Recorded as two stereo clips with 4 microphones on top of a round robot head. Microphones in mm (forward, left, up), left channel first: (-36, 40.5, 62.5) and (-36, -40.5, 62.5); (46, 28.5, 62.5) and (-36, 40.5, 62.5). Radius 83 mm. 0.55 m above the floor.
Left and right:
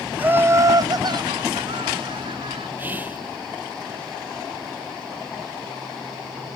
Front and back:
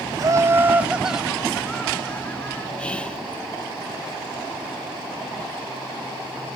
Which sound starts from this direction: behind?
Laughter, at 0.2 s.